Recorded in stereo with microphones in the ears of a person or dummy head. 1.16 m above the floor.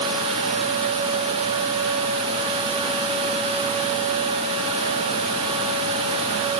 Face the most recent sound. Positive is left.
No sound to turn to.